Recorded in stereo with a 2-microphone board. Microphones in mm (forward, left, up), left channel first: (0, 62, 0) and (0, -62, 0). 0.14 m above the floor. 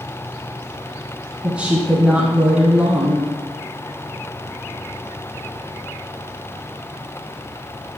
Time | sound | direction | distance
1.4 | a woman speaking | 10° right (ahead or behind) | 1.1 m